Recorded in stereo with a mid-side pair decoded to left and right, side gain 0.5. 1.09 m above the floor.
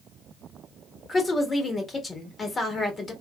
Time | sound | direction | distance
1.1 | a woman speaking | 30° left | 1.7 m